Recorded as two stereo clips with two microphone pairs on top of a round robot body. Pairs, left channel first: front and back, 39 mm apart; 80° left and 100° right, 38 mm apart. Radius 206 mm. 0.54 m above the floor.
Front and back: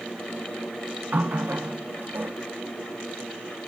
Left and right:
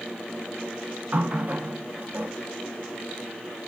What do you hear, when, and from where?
1.1 s a running tap: 145° right, 0.9 m